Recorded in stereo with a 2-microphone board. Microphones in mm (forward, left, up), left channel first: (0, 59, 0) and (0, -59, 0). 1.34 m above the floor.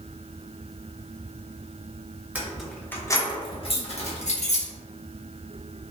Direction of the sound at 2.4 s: 10° right (ahead or behind).